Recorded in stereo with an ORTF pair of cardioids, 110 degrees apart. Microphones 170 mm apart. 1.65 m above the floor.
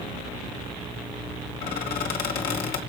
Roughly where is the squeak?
Ahead left.